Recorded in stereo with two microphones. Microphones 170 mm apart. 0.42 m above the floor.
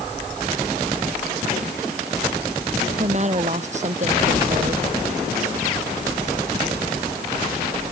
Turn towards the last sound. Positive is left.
turn(degrees=-45)  # may be behind; listen again after turning